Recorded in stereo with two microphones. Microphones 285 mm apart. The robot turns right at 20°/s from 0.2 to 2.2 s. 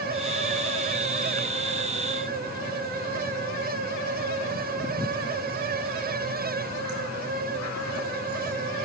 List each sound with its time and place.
Only background noise.